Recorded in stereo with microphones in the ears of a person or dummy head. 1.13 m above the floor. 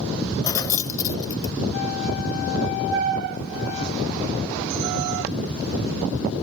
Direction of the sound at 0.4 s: 20° left (ahead or behind).